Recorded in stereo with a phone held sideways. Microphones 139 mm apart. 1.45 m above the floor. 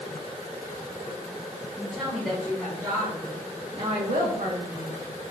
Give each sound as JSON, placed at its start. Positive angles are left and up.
{"t": 1.8, "sound": "a woman speaking", "side_deg": 15, "distance_m": 1.2}